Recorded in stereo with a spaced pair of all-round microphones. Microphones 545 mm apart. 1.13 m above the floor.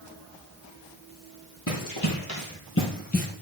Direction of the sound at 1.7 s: 35° left (ahead or behind).